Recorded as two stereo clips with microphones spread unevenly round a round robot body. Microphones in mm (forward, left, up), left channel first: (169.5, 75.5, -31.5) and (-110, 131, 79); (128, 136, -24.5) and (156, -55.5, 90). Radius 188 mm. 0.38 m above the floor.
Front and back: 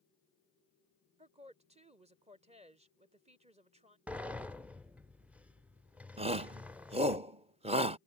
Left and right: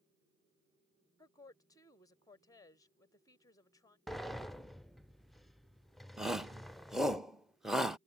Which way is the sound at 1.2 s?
85° left.